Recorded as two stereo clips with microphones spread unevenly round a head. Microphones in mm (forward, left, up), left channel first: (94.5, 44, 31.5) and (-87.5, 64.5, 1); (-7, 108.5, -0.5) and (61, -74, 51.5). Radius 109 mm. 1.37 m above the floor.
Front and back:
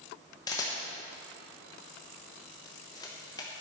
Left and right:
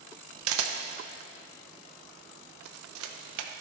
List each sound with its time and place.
0.5 s a camera shutter: 80° right, 0.9 m